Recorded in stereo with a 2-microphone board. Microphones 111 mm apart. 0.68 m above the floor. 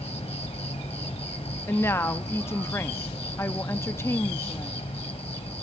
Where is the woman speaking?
25° left (ahead or behind), 0.6 m.